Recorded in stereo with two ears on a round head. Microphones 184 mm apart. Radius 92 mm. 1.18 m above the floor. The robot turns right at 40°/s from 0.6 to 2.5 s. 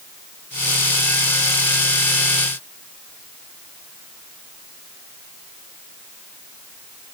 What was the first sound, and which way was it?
Only background noise.